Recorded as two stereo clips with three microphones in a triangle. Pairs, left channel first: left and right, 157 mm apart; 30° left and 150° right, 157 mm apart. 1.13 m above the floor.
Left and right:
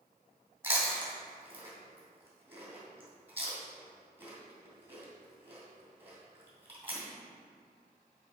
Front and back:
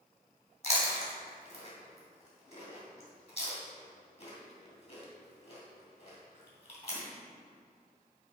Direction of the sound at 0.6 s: 15° right.